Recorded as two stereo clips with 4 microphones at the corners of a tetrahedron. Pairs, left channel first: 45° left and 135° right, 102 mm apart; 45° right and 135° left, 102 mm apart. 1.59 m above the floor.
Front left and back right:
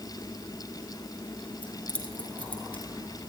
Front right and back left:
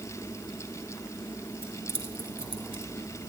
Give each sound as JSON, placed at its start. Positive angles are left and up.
{"t": 1.6, "sound": "keys jangling", "azimuth_deg": 120, "distance_m": 3.0}